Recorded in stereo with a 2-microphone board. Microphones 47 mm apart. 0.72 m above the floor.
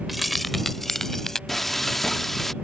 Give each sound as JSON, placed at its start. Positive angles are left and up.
{"t": 0.1, "sound": "keys jangling", "side_deg": 0}
{"t": 1.5, "sound": "frying", "side_deg": 5}